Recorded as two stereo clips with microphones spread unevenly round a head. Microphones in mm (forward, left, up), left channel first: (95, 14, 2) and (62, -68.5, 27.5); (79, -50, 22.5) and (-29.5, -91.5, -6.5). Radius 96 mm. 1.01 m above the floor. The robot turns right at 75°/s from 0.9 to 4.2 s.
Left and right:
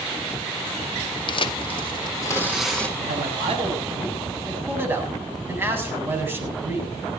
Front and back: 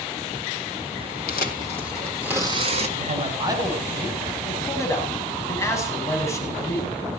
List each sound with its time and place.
1.3 s tearing paper: 50° left, 1.6 m; by 2.9 s 170° left, 1.6 m
3.0 s a man speaking: 135° right, 7 m; by 6.9 s 45° right, 7 m